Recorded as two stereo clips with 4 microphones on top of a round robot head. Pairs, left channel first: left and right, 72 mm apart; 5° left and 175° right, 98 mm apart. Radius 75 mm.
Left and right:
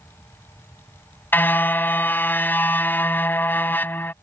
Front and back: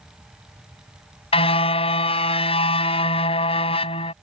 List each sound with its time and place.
1.3 s a car horn: 25° left